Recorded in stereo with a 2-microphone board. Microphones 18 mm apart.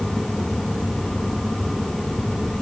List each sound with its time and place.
Only background noise.